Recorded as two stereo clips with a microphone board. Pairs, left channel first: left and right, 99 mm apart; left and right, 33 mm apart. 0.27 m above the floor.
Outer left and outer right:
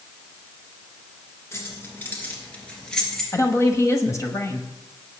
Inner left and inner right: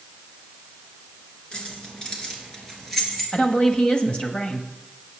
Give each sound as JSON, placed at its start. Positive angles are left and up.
{"t": 1.5, "sound": "keys jangling", "side_deg": 30, "distance_m": 3.0}
{"t": 3.3, "sound": "a woman speaking", "side_deg": 35, "distance_m": 1.1}